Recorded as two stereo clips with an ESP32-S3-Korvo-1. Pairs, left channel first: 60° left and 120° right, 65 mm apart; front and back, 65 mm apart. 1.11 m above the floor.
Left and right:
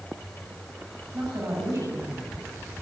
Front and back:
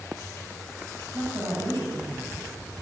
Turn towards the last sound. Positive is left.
turn(degrees=-160)